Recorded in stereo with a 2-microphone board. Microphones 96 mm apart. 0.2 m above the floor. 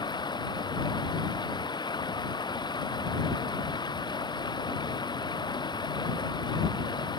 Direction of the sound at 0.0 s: 50° left (ahead or behind).